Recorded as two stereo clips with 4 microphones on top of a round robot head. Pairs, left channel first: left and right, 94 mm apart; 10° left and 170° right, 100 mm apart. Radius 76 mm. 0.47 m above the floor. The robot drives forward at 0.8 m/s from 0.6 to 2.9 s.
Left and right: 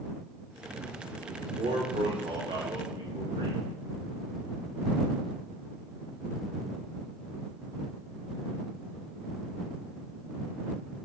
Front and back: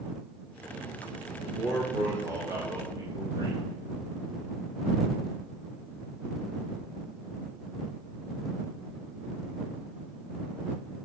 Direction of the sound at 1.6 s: 85° right.